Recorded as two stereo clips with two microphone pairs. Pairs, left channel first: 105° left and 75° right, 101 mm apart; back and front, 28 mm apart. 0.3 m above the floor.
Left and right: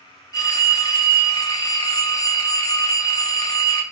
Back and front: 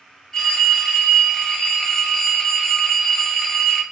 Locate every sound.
0.3 s a phone ringing: 120° left, 0.9 m